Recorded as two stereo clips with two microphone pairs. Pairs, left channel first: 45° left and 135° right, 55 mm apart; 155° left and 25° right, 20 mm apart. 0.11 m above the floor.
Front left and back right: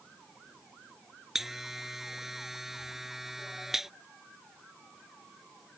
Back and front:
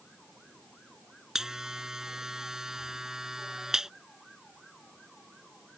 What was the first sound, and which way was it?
A buzzer, 55° right.